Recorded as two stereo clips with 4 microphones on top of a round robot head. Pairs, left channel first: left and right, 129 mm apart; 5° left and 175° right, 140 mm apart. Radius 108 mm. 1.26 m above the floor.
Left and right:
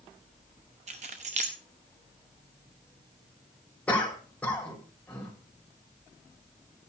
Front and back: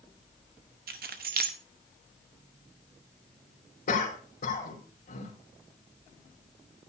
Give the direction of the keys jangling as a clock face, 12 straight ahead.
5 o'clock.